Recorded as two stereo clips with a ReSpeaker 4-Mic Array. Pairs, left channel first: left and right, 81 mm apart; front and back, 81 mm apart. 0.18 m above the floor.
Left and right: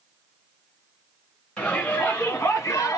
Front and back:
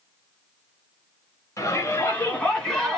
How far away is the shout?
About 2 m.